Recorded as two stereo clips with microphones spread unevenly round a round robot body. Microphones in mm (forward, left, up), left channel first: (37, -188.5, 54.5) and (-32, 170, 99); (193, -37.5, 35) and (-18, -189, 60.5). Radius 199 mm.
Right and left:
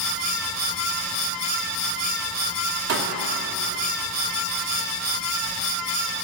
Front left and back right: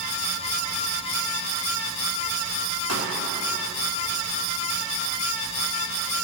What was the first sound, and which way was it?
A pop, 160° left.